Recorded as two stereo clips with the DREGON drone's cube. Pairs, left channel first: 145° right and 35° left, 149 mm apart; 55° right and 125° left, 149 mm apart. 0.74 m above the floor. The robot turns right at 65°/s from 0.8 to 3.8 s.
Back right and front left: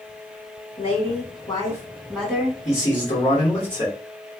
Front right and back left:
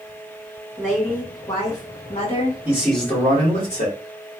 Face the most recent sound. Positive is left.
turn(degrees=-85)